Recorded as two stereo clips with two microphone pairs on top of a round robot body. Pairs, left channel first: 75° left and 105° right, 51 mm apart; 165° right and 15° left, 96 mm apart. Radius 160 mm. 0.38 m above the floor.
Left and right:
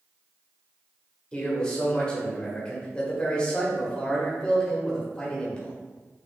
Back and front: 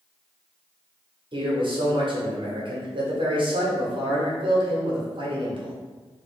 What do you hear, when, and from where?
1.3 s a man speaking: 15° left, 1.6 m